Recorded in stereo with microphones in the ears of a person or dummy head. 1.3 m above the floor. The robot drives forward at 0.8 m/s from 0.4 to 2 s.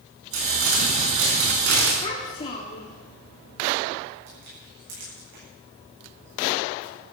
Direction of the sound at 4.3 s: 70° right (ahead or behind).